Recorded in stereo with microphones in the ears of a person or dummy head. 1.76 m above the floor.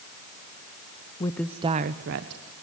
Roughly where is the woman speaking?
Left.